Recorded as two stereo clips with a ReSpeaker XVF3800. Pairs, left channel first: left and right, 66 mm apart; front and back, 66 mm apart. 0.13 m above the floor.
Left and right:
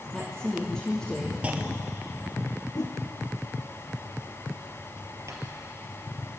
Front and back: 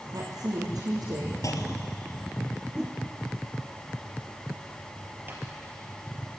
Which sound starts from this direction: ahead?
A clunk, at 1.4 s.